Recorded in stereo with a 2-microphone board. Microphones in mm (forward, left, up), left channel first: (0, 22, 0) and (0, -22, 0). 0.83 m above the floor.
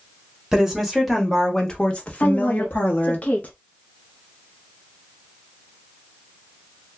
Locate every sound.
0.5 s a woman speaking: 10° right (ahead or behind), 1.3 m; by 3.2 s 65° left (ahead or behind), 1.0 m
2.2 s a woman speaking: 40° left (ahead or behind), 0.6 m